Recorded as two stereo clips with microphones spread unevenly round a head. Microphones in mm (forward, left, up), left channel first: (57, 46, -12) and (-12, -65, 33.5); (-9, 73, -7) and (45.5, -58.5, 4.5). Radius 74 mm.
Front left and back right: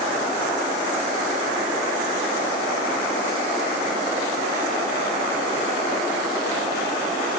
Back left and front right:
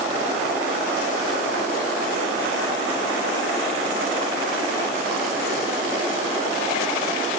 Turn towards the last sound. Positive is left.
No sound to turn to.